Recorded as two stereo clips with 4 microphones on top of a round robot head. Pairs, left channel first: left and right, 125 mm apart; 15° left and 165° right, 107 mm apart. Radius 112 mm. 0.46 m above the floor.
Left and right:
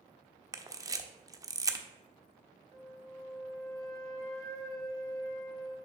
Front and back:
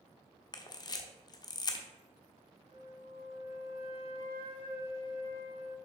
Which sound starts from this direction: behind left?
A flute, at 2.7 s.